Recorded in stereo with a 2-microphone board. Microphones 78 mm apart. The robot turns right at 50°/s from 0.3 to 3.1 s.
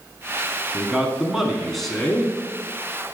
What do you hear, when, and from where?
0.7 s a man speaking: 15° right (ahead or behind), 1.1 m; by 2.4 s 10° left (ahead or behind), 1.1 m